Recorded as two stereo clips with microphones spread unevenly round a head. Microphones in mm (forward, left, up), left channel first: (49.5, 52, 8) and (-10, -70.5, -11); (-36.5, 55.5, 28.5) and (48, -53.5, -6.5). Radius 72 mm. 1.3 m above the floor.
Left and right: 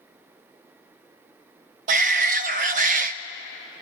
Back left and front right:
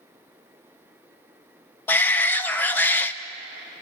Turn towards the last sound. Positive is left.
turn(degrees=-150)